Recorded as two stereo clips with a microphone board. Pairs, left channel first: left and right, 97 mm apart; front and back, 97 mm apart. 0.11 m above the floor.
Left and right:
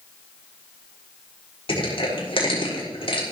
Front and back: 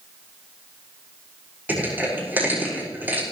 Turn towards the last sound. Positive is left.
turn(degrees=110)